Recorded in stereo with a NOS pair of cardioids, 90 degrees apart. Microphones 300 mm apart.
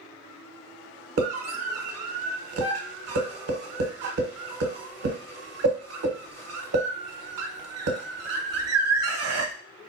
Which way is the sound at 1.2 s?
55° right.